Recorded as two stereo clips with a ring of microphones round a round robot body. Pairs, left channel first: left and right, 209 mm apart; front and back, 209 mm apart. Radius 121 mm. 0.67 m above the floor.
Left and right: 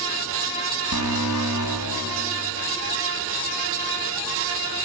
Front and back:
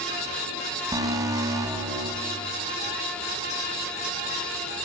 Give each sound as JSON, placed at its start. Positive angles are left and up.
{"t": 0.9, "sound": "an alarm", "azimuth_deg": 105, "distance_m": 4.5}